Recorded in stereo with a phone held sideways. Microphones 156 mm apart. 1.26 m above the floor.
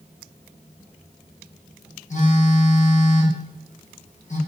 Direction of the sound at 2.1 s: 50° left (ahead or behind).